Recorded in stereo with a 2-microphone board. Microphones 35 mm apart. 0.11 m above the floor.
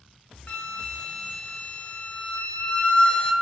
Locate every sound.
0.5 s a flute: 35° left (ahead or behind), 0.8 m